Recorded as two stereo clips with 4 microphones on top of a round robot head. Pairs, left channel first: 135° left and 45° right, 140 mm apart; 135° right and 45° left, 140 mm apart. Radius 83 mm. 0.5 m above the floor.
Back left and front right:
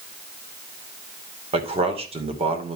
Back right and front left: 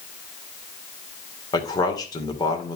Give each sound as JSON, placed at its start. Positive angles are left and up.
{"t": 1.5, "sound": "a man speaking", "azimuth_deg": -80, "distance_m": 2.5}